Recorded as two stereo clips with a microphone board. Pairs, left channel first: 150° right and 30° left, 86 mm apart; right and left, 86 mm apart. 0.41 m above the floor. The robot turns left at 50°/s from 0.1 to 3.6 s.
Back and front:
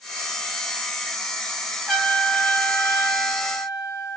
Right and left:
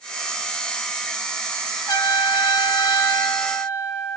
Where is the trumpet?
75° right, 2.5 m; by 4.2 s 160° right, 2.5 m.